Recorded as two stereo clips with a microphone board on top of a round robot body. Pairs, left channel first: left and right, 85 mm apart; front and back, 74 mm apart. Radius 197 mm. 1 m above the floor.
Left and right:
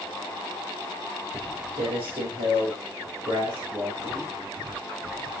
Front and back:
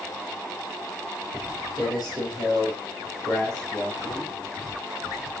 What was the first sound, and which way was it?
Footsteps, 105° right.